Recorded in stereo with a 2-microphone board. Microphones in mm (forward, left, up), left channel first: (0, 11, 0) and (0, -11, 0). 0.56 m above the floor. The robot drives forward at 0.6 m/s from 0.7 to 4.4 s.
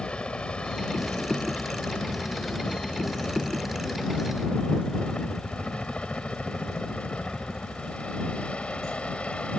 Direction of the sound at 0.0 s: 55° left (ahead or behind).